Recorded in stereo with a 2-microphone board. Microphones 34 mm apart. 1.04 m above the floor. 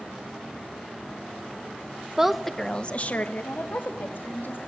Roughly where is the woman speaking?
Centre.